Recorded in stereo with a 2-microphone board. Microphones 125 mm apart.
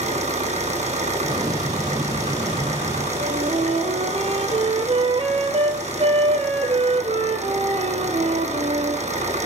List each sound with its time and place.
0.0 s an engine running: 75° right (ahead or behind), 3 m
1.2 s an explosion: 35° right (ahead or behind), 4 m
3.2 s a flute: 55° right (ahead or behind), 2 m